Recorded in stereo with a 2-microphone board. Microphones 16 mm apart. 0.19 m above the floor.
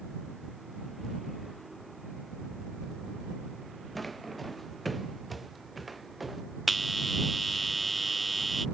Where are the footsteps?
5° left (ahead or behind); by 6.4 s 5° right (ahead or behind).